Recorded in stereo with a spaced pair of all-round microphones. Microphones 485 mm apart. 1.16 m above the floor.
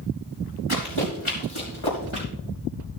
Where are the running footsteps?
80° left, 5.5 m; by 2.3 s 70° left (ahead or behind), 5.5 m.